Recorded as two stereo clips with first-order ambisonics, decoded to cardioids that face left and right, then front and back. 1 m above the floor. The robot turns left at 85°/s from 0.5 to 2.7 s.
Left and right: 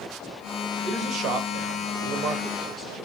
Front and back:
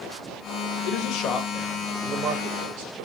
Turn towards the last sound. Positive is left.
turn(degrees=-170)